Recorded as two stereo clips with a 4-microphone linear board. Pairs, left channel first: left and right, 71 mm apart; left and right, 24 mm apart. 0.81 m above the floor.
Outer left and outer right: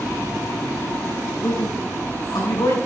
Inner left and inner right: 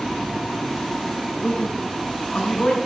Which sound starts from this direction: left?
A man speaking, at 1.4 s.